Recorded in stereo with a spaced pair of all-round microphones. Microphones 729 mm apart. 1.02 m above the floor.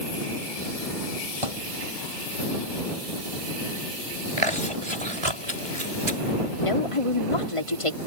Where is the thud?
45° right (ahead or behind).